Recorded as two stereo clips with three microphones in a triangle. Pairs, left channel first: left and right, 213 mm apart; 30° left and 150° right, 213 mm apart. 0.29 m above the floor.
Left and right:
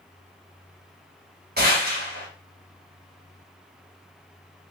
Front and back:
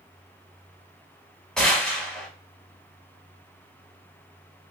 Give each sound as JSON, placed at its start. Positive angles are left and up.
{"t": 1.6, "sound": "a gunshot", "azimuth_deg": -55, "distance_m": 1.6}